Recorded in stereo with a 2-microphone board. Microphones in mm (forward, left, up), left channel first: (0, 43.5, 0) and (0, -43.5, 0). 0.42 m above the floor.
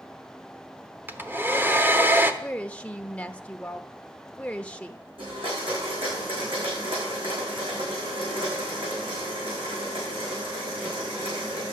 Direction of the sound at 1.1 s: 25° right (ahead or behind).